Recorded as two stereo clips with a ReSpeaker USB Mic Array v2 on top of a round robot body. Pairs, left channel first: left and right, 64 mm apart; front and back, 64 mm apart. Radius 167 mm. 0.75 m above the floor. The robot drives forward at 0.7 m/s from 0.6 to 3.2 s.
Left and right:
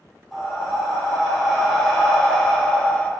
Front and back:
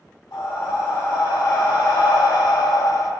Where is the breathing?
5° left, 2 m; by 3.1 s 25° left, 0.6 m.